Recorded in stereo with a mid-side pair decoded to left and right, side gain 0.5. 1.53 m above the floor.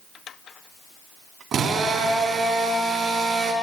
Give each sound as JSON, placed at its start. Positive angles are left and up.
{"t": 1.5, "sound": "a drill", "azimuth_deg": -55, "distance_m": 3.5}